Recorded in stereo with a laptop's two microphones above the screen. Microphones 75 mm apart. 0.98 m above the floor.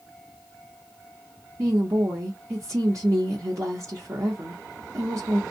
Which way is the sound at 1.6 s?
45° right (ahead or behind).